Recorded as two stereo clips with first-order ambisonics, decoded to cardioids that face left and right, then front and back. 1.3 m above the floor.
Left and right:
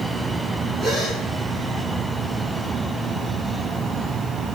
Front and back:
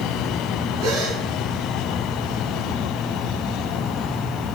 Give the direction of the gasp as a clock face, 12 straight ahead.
5 o'clock.